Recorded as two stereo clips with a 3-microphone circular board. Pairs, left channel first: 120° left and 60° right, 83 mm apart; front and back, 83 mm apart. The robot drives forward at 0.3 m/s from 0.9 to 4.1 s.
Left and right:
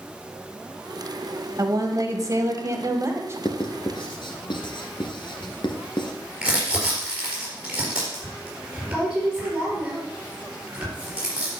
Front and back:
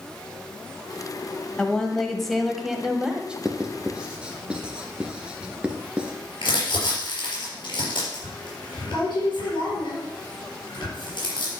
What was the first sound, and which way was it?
A woman speaking, 75° right.